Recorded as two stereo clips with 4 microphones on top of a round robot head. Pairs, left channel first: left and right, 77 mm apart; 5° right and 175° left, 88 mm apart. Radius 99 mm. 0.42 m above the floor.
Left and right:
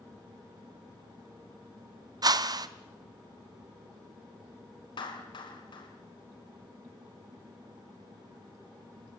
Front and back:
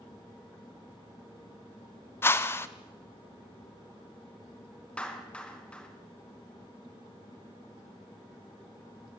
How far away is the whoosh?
About 1.1 m.